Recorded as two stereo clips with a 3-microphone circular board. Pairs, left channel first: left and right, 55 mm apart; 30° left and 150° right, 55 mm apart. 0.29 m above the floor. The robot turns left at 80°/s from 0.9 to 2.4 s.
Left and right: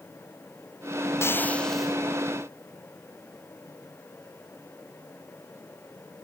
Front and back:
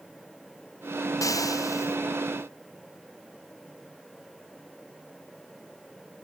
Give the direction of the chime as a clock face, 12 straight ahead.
I don't hear a chime.